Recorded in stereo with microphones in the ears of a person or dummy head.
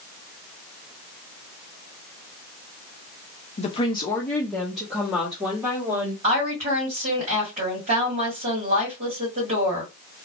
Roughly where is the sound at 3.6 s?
Left.